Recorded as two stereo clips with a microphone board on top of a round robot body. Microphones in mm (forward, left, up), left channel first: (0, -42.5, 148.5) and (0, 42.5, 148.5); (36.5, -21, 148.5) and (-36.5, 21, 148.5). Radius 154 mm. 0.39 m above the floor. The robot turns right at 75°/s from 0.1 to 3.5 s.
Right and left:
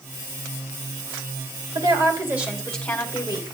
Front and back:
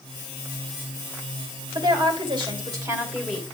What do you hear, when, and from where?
1.8 s a woman speaking: 115° left, 3 m; by 3.4 s 115° right, 3 m